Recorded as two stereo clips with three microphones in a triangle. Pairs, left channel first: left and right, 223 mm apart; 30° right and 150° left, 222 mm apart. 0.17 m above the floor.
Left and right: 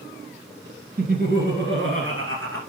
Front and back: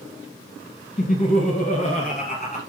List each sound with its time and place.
1.0 s laughter: 70° right, 1.7 m; by 2.6 s 85° right, 3 m